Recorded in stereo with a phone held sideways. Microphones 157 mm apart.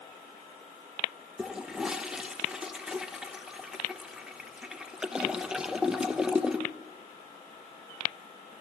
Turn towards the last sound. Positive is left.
turn(degrees=-5)  # may be behind; listen again after turning